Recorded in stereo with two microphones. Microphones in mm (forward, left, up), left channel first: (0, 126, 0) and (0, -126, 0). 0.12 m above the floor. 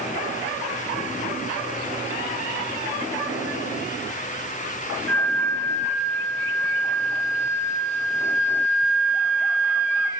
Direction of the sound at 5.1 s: 45° right (ahead or behind).